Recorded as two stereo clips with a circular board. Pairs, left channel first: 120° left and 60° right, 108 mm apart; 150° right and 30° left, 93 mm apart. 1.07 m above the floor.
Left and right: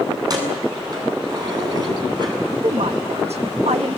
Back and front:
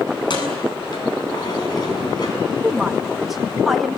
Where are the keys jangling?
110° right, 7.5 m; by 2.4 s 105° right, 6.5 m.